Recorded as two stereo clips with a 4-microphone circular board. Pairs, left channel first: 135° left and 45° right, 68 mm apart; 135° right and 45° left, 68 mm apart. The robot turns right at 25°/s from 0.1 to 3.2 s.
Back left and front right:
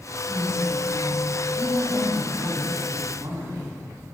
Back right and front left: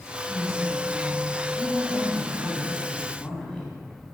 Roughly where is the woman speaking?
Behind right.